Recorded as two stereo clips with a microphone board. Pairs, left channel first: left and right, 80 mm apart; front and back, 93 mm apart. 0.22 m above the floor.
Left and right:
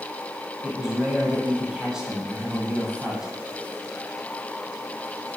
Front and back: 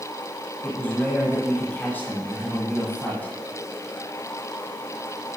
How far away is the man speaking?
About 1.5 m.